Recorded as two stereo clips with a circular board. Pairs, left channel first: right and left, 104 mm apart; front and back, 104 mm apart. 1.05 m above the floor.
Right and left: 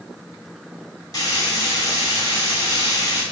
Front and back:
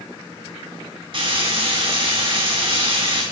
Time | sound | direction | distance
1.1 | frying | 145° right | 4.5 m